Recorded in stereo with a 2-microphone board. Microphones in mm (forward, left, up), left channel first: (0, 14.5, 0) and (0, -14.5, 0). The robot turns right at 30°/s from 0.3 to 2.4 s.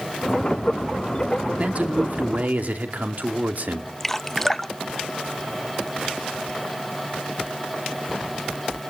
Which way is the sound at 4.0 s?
15° left (ahead or behind).